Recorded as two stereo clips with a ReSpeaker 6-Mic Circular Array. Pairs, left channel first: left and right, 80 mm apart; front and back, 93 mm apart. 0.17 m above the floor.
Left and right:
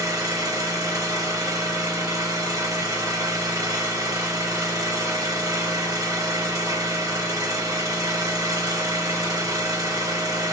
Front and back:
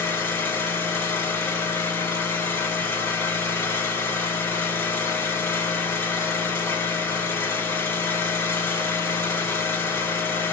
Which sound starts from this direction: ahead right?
An engine running, at 0.0 s.